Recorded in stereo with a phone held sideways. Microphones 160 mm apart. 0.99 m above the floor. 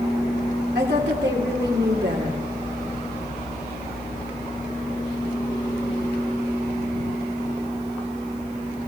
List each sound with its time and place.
0.8 s a woman speaking: 80° right, 3 m